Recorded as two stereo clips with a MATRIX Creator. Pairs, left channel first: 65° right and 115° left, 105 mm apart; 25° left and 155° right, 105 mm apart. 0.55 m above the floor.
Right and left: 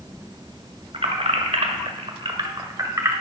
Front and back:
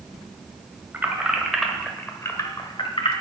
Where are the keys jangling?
135° left, 1.7 m; by 3.1 s 50° left, 1.6 m.